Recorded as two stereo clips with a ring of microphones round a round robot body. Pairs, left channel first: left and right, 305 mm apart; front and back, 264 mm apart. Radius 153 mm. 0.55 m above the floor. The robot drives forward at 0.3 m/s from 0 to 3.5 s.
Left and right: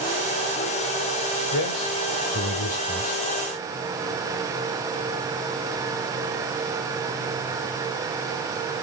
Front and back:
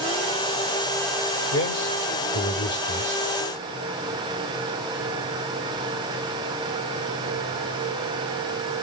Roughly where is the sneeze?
No sneeze in this recording.